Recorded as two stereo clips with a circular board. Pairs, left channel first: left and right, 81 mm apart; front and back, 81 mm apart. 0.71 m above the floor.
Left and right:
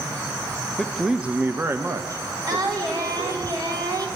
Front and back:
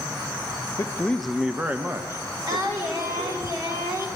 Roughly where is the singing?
Behind right.